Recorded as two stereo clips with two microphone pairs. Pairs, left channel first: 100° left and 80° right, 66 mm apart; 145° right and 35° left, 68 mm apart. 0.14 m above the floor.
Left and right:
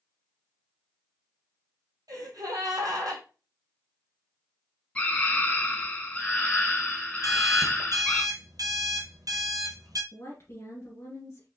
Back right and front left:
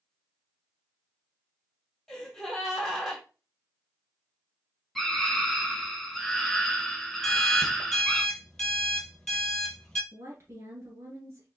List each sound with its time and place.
2.1 s a gasp: 60° right, 2 m
5.0 s a scream: 130° left, 1.2 m
7.2 s an alarm clock: 65° right, 1.6 m
10.1 s a woman speaking: 75° left, 1.7 m